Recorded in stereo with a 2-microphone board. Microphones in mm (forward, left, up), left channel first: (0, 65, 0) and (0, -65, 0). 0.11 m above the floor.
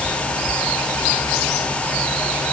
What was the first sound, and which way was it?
Only background noise.